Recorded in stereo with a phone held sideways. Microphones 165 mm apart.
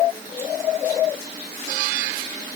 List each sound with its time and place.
Only background noise.